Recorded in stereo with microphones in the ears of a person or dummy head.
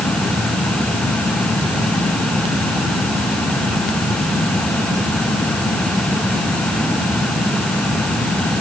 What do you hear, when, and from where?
Only background noise.